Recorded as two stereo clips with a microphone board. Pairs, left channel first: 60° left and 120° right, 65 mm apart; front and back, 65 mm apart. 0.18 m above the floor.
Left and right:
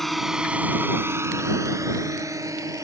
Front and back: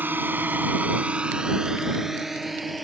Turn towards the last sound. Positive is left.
turn(degrees=-90)